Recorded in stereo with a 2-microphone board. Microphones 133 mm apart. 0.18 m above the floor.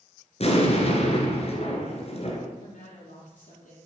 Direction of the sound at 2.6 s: 75° left (ahead or behind).